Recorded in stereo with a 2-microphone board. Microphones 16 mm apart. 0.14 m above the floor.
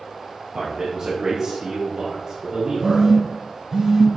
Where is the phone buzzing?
30° right (ahead or behind), 1.9 m.